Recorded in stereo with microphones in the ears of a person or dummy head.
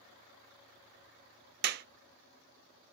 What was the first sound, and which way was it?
A clap, 60° right (ahead or behind).